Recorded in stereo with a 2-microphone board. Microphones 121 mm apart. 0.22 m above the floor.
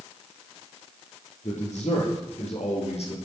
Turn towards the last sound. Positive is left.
turn(degrees=60)  # may be behind; listen again after turning